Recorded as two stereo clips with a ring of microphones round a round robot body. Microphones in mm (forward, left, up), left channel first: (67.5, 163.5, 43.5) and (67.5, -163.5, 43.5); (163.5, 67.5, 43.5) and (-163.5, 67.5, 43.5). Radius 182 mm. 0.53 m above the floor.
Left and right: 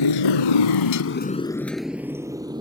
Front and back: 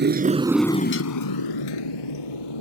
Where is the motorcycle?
120° left; by 2.6 s 15° right.